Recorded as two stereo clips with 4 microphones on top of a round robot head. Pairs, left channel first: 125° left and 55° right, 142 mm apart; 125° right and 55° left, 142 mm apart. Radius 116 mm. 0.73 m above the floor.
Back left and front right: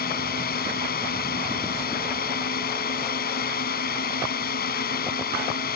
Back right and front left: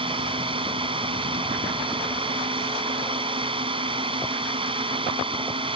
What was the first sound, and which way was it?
A drone, 110° left.